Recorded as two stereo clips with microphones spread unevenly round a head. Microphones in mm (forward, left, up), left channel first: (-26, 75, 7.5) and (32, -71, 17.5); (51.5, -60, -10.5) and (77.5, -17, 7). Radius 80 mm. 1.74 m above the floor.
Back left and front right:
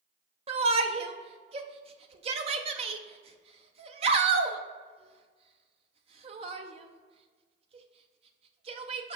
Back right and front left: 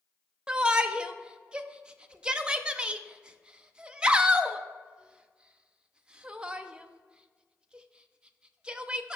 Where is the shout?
15° right, 0.6 m.